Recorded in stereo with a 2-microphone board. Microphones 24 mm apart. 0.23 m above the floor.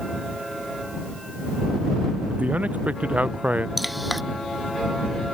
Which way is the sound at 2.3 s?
85° right.